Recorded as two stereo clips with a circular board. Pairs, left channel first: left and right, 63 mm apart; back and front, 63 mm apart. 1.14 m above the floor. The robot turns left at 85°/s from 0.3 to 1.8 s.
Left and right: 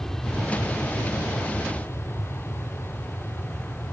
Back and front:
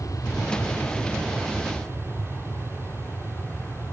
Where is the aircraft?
175° left; by 3.9 s 45° left.